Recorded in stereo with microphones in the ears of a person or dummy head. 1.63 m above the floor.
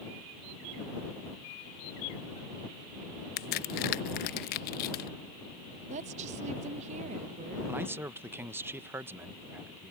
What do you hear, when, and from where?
3.4 s a crack: 55° left (ahead or behind)
5.9 s a woman speaking: 40° right (ahead or behind)
7.7 s a man speaking: 10° right (ahead or behind)